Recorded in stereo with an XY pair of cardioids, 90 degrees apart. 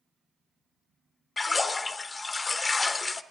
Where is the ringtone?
No ringtone in this recording.